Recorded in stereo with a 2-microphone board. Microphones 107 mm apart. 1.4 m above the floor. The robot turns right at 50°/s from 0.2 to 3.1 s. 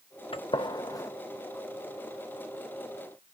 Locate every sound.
0.3 s a gunshot: 55° left (ahead or behind), 0.6 m; by 1.1 s 30° left (ahead or behind), 0.6 m